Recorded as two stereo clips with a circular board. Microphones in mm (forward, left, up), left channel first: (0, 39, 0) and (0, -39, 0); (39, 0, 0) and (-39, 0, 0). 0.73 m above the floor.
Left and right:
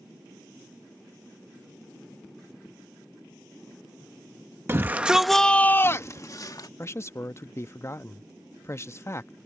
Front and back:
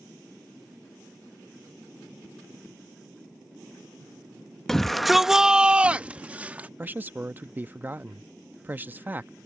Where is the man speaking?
125° left.